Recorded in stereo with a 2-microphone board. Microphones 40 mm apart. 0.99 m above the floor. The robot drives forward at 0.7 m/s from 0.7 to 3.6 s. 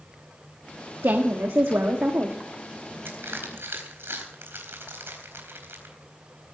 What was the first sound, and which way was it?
A woman speaking, 80° right.